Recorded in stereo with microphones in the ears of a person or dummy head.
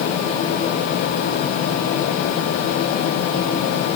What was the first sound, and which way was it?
Only background noise.